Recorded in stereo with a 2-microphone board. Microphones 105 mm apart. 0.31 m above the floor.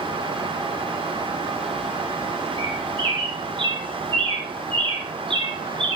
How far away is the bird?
About 4 m.